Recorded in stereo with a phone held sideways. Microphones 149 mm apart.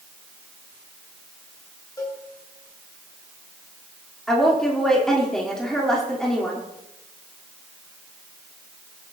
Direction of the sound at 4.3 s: 5° left (ahead or behind).